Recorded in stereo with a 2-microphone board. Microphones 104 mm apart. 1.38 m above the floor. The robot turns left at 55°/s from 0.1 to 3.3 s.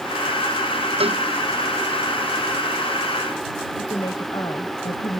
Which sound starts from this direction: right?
A cowbell, at 1.0 s.